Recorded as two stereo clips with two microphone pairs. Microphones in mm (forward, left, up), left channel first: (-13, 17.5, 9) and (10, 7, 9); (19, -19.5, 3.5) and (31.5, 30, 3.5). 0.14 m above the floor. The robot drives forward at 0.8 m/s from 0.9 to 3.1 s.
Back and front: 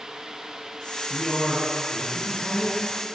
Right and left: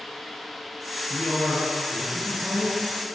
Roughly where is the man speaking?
Behind.